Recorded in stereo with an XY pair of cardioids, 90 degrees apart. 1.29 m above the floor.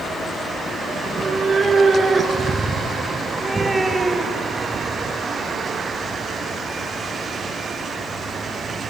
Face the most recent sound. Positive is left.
turn(degrees=-15)